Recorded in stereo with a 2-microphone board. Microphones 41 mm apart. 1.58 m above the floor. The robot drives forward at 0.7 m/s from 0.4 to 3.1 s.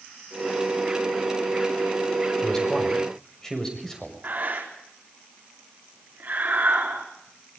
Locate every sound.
2.4 s a man speaking: 15° left (ahead or behind), 5.5 m; by 4.2 s 10° left (ahead or behind), 6 m
4.2 s breathing: 45° right (ahead or behind), 4.5 m